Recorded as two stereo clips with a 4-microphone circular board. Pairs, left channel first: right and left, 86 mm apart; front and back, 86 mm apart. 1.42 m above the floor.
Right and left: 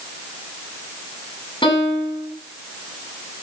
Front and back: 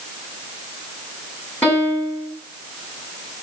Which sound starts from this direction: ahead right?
A piano, at 1.6 s.